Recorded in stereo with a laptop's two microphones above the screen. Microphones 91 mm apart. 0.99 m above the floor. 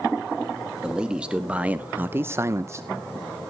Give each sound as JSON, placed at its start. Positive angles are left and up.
{"t": 0.8, "sound": "a man speaking", "side_deg": -10, "distance_m": 1.8}